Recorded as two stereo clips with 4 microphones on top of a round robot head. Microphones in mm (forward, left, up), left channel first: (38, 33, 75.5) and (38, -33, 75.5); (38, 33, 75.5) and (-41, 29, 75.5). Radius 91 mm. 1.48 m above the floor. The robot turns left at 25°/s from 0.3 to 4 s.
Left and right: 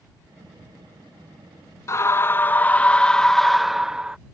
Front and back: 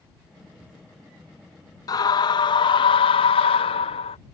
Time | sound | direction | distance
1.9 | a scream | 45° left | ?